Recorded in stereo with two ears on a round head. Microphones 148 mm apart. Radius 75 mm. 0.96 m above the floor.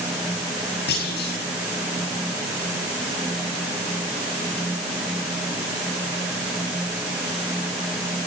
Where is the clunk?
70° left (ahead or behind), 7.5 m.